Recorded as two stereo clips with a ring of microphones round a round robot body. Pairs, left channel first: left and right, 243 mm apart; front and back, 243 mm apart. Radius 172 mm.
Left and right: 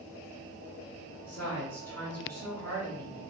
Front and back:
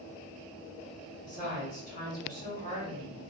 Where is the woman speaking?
10° left, 1.5 m.